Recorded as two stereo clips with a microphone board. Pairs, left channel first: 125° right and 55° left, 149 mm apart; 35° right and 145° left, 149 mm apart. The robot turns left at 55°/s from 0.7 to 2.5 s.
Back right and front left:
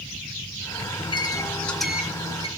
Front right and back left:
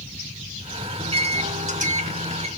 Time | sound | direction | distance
1.0 | a microwave | 165° right | 1.7 m